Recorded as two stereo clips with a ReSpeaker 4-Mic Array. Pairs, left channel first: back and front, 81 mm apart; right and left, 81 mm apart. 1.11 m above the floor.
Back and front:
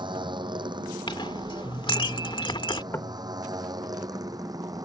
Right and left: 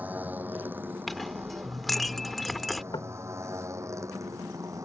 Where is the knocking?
120° right.